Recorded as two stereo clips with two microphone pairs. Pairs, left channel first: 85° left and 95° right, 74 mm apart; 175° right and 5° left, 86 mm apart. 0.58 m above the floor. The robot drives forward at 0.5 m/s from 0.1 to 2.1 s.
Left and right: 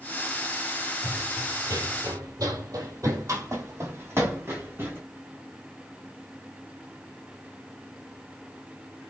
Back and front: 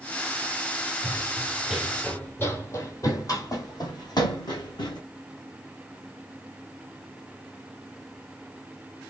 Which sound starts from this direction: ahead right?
Running footsteps, at 1.0 s.